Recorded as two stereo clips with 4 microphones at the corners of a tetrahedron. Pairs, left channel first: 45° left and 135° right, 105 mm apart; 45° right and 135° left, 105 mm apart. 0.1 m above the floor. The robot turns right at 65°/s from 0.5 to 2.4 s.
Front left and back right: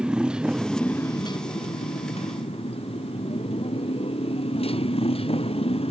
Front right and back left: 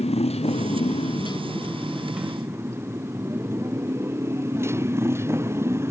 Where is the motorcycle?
55° right; by 5.9 s 70° left.